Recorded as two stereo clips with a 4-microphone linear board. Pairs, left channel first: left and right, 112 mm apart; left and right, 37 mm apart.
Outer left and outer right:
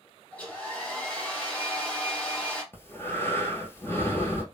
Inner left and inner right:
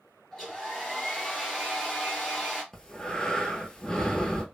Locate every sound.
0.3 s a hair dryer: 10° left (ahead or behind), 1.6 m
2.7 s breathing: 20° left (ahead or behind), 0.7 m